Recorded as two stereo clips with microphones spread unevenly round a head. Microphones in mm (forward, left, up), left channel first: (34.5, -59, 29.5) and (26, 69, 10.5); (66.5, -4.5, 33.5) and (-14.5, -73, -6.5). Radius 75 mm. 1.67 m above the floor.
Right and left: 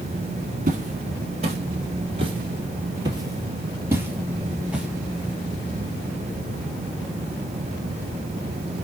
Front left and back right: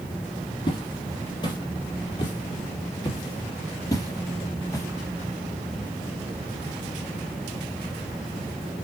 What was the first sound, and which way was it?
Footsteps, 65° left.